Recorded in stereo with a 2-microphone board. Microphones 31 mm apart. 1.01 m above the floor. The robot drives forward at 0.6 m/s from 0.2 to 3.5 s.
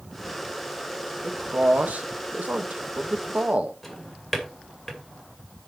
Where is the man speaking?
50° right (ahead or behind), 1.4 m.